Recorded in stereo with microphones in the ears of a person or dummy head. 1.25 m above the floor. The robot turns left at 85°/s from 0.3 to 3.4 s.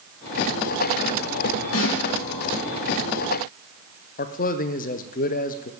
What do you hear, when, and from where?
1.7 s a snare drum: 80° left, 3.5 m; by 2.0 s 60° left (ahead or behind), 3.5 m
4.2 s a man speaking: 40° left (ahead or behind), 0.6 m